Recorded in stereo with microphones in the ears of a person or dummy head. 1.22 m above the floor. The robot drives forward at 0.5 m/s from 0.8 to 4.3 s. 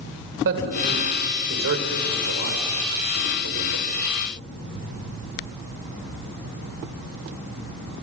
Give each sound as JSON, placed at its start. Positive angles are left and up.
{"t": 0.5, "sound": "a man speaking", "side_deg": -65, "distance_m": 4.5}